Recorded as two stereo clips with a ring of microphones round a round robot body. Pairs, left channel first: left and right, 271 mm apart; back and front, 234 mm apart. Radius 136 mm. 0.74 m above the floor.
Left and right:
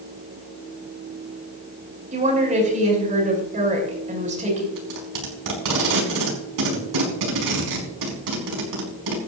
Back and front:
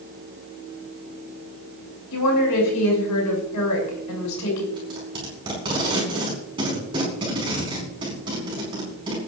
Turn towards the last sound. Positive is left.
turn(degrees=-75)